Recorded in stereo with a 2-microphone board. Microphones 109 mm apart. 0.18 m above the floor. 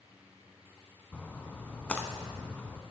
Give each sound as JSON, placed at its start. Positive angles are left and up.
{"t": 1.1, "sound": "a splash", "side_deg": 10, "distance_m": 0.8}